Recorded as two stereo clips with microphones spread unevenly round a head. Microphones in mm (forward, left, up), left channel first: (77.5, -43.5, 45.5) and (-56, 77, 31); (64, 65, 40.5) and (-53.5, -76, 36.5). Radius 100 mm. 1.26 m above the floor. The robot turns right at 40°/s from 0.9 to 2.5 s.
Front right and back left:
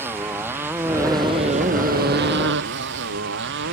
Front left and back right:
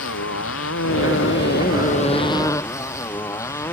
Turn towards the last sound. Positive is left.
turn(degrees=125)